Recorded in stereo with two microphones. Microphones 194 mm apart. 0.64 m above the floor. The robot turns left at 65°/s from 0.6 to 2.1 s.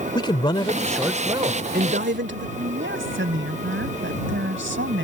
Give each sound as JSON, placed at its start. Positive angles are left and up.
{"t": 0.1, "sound": "a man speaking", "azimuth_deg": 25}
{"t": 2.6, "sound": "a woman speaking", "side_deg": -80}